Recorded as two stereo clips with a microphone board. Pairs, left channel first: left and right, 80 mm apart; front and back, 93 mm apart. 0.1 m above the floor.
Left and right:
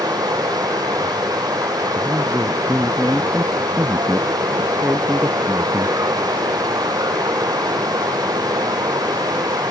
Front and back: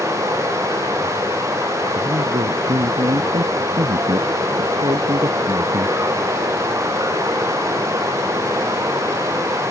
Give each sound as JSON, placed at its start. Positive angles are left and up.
{"t": 0.0, "sound": "running water", "azimuth_deg": -125}
{"t": 1.9, "sound": "a man speaking", "azimuth_deg": -165}